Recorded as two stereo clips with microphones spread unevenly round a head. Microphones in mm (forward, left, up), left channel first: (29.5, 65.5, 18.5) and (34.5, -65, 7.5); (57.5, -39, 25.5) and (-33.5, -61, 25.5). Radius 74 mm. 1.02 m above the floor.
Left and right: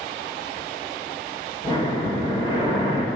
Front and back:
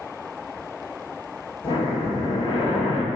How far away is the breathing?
About 1.7 m.